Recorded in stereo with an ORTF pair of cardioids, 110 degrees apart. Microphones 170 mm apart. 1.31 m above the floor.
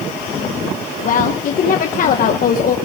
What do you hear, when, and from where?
1.0 s a woman speaking: 50° left, 1.2 m